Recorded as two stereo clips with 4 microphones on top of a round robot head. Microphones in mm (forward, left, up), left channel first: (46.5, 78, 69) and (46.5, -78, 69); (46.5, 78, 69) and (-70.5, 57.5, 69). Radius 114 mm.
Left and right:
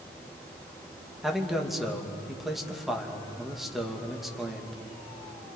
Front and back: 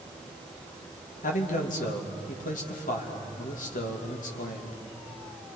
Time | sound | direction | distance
1.2 | a man speaking | straight ahead | 2.5 m